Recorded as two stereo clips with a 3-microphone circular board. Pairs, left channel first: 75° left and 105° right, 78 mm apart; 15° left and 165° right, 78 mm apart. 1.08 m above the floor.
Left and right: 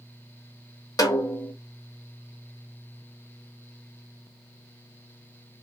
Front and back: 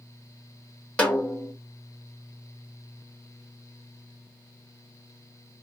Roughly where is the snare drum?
Left.